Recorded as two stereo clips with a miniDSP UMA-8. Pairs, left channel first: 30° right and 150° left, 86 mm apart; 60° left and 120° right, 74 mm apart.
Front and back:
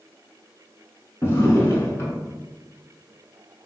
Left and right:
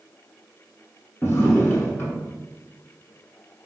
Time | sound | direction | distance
1.2 | a drawer | 15° left | 0.8 m